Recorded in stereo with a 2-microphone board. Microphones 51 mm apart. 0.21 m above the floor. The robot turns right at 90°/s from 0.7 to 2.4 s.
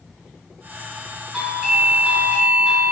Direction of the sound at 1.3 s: 10° right (ahead or behind).